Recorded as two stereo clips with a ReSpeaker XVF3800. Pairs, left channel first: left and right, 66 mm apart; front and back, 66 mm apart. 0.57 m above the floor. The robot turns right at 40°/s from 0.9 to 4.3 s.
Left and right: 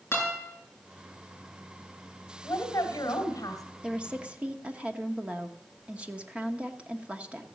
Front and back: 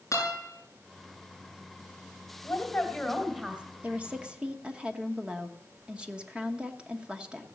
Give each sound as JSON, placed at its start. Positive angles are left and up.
{"t": 0.1, "sound": "a guitar", "azimuth_deg": 40, "distance_m": 7.5}
{"t": 2.4, "sound": "a woman speaking", "azimuth_deg": 60, "distance_m": 2.5}
{"t": 3.8, "sound": "a woman speaking", "azimuth_deg": -145, "distance_m": 1.1}